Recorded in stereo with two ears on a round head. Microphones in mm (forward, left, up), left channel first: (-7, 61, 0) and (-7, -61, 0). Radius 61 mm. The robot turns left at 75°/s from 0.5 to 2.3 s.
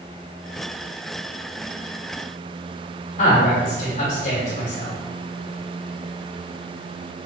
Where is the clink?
No clink in this recording.